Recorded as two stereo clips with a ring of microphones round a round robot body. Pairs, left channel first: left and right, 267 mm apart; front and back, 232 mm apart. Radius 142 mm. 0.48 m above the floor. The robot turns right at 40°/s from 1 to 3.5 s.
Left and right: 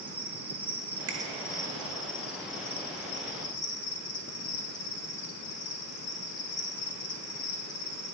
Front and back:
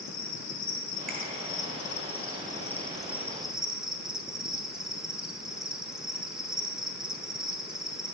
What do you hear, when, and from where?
0.0 s an insect: 10° right, 0.9 m; by 8.1 s 90° left, 0.9 m
1.1 s a finger snap: 90° right, 1.1 m; by 1.2 s 85° right, 1.1 m